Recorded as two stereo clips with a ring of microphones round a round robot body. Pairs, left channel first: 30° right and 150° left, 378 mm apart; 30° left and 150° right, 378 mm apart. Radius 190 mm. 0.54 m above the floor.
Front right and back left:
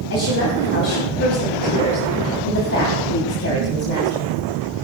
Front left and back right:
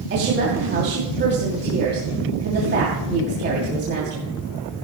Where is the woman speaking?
85° right, 3 m.